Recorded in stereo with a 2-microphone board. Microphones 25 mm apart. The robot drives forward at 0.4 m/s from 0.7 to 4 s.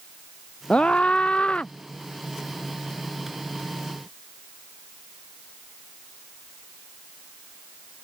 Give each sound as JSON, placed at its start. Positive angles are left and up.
{"t": 0.7, "sound": "a scream", "side_deg": 45}